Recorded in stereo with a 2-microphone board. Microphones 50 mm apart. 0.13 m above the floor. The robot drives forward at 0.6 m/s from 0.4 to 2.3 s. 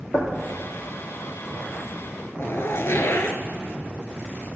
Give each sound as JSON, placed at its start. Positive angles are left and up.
{"t": 0.1, "sound": "knocking", "side_deg": 70, "distance_m": 2.5}
{"t": 2.4, "sound": "a zipper", "side_deg": 55, "distance_m": 0.7}